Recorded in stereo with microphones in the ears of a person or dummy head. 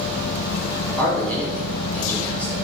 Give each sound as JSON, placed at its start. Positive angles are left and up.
{"t": 1.0, "sound": "a man speaking", "side_deg": 5, "distance_m": 0.8}